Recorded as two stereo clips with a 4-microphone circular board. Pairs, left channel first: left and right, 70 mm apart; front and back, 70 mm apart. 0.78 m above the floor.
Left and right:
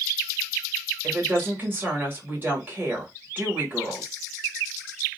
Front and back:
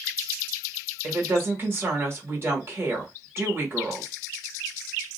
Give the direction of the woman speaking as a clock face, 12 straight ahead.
5 o'clock.